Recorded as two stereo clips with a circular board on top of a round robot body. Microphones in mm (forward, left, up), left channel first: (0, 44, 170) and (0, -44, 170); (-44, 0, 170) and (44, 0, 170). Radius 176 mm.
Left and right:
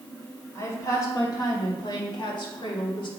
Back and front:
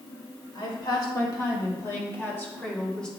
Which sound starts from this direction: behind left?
A woman speaking, at 0.6 s.